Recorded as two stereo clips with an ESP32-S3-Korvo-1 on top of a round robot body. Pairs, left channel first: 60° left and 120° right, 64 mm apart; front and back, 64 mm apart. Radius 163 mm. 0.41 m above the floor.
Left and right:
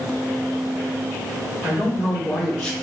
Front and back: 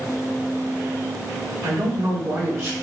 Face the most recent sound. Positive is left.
turn(degrees=130)